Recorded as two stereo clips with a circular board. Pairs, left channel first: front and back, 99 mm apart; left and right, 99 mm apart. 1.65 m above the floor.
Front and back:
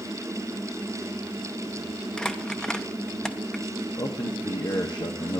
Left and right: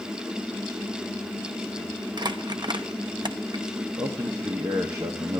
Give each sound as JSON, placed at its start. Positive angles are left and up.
{"t": 2.2, "sound": "crumpling", "azimuth_deg": -80, "distance_m": 0.8}
{"t": 4.0, "sound": "a man speaking", "azimuth_deg": -35, "distance_m": 0.9}